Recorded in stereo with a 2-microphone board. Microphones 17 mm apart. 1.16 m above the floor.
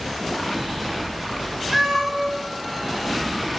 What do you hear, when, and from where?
1.7 s a cat meowing: 50° right (ahead or behind), 1.5 m